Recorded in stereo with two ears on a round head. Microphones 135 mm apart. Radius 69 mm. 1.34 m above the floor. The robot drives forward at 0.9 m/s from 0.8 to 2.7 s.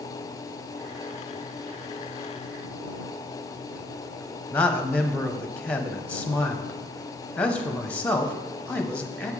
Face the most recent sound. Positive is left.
turn(degrees=10)  # may be behind; listen again after turning